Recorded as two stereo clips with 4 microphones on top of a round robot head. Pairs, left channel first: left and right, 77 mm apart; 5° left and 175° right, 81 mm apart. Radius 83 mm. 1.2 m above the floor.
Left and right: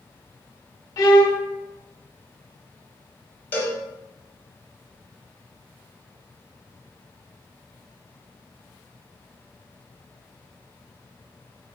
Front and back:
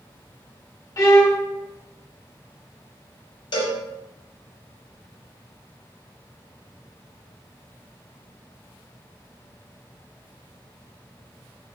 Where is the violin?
50° left, 0.7 m.